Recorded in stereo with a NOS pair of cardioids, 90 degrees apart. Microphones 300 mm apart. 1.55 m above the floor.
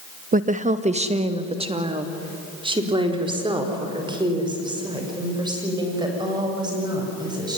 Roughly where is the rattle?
I don't hear a rattle.